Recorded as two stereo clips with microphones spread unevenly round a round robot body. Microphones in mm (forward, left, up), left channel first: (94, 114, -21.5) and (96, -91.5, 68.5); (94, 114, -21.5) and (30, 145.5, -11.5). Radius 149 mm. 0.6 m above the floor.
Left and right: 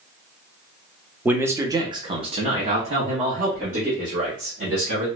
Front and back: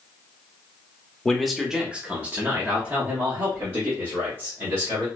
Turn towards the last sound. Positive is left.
turn(degrees=-160)